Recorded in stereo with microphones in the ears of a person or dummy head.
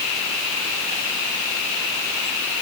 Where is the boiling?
No boiling in this recording.